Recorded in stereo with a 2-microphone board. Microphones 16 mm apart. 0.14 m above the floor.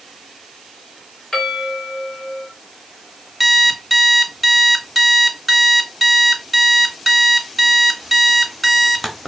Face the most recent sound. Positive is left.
turn(degrees=-5)  # may be behind; listen again after turning